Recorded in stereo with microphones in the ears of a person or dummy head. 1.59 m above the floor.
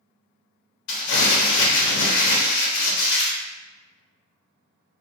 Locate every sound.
0.9 s crumpling: 65° left (ahead or behind), 0.9 m